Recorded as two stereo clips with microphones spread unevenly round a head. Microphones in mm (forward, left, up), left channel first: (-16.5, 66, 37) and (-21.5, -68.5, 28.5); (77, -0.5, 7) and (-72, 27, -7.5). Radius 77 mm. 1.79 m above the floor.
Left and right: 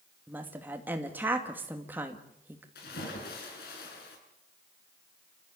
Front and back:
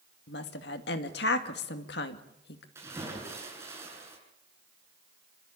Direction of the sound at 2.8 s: 95° left.